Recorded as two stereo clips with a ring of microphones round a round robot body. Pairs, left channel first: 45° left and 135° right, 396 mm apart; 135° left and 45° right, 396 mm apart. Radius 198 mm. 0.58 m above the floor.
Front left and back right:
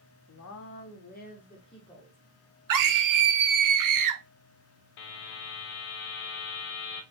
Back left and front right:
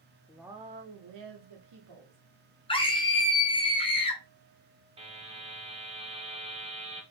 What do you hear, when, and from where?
0.3 s a woman speaking: 55° left, 0.7 m; by 2.2 s 35° right, 1.4 m
2.7 s a scream: 150° right, 0.9 m
5.0 s a buzzer: 30° left, 0.8 m